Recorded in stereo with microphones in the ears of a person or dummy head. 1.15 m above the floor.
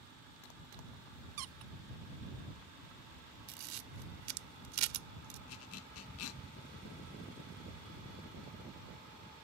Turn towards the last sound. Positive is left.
turn(degrees=70)  # may be behind; listen again after turning